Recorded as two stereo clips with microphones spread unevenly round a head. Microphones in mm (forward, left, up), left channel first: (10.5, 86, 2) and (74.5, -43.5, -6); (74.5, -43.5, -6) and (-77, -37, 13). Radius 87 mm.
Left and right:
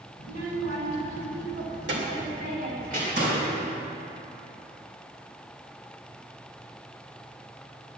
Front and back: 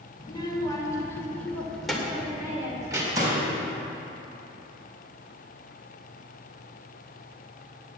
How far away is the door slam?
About 4 m.